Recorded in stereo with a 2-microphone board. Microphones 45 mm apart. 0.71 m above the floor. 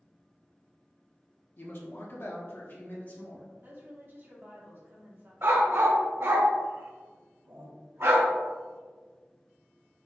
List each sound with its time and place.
1.6 s a man speaking: 50° left (ahead or behind), 0.6 m; by 3.5 s 40° left (ahead or behind), 1.4 m
3.6 s a woman speaking: 50° right (ahead or behind), 1.2 m
5.4 s a dog barking: 60° right (ahead or behind), 0.7 m